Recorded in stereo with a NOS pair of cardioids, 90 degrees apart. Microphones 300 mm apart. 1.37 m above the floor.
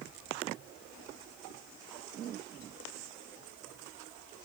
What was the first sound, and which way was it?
Only background noise.